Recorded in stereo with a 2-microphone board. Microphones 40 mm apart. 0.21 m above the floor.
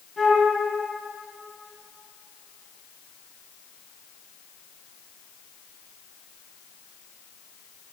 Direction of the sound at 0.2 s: Centre (ahead or behind).